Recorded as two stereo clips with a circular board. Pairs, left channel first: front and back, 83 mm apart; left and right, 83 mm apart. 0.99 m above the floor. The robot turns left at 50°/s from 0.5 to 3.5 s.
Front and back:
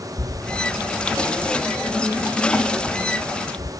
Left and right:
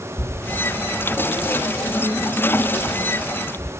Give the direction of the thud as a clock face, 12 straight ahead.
7 o'clock.